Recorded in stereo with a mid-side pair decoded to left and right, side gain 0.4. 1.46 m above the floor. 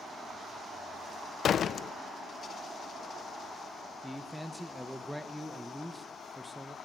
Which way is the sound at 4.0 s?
Straight ahead.